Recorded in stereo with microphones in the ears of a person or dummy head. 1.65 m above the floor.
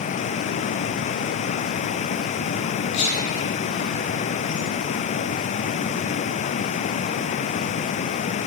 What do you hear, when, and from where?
2.9 s whispering: 60° left (ahead or behind), 0.8 m